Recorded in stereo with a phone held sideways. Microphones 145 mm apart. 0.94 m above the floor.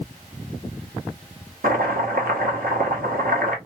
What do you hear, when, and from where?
1.6 s chopping: 85° right, 0.9 m